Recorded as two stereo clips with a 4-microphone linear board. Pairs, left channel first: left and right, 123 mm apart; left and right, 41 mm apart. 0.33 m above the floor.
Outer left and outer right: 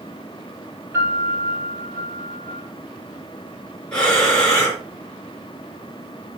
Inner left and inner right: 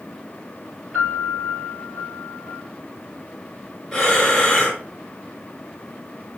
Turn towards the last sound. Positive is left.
turn(degrees=10)  # may be behind; listen again after turning